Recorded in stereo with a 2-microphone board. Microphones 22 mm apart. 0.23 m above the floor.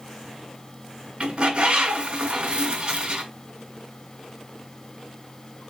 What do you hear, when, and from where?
1.2 s a bird: 50° right (ahead or behind), 2.0 m